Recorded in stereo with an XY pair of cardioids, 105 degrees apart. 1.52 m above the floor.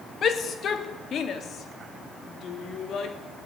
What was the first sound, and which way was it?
A shout, 55° left.